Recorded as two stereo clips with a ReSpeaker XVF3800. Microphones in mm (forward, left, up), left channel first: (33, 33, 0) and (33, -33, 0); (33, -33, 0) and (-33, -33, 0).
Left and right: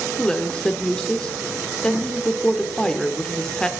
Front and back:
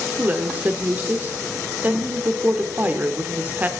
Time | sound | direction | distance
0.2 | a woman speaking | 155° left | 0.9 m